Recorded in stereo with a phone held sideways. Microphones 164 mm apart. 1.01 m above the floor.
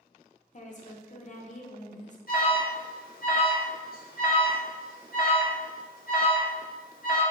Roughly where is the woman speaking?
Left.